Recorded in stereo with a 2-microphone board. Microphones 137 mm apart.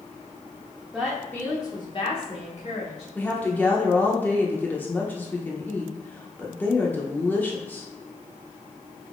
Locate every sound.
0.9 s a woman speaking: 5° right (ahead or behind), 0.8 m; by 3.0 s 60° left (ahead or behind), 1.4 m
3.1 s a woman speaking: 15° left (ahead or behind), 0.7 m